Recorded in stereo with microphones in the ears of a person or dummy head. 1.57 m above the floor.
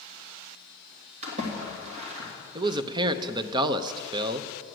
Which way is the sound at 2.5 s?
25° right (ahead or behind).